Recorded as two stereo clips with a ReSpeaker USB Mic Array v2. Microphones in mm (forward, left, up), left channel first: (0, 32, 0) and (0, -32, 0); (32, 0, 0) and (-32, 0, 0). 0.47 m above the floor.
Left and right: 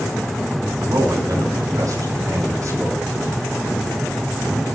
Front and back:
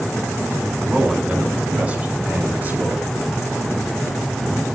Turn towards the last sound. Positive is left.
turn(degrees=-120)